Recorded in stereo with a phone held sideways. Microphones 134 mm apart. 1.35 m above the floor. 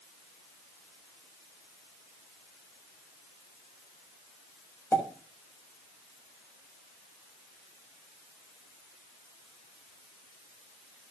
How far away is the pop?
About 5.5 m.